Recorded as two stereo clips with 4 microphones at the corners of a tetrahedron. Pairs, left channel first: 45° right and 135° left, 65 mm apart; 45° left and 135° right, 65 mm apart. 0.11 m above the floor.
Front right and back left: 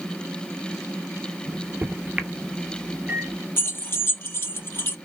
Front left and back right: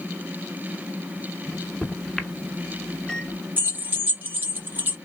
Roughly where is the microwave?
Behind left.